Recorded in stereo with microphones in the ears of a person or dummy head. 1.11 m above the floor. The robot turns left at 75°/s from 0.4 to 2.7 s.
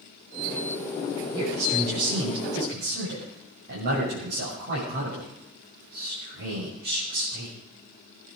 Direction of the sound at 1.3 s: 15° right.